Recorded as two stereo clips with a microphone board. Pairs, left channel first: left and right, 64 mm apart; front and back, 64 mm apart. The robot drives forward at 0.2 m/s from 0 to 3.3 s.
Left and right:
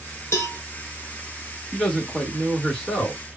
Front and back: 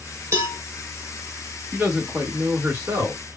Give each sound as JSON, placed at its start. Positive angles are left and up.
{"t": 0.3, "sound": "a cowbell", "azimuth_deg": 135, "distance_m": 1.0}
{"t": 1.7, "sound": "a man speaking", "azimuth_deg": 170, "distance_m": 1.4}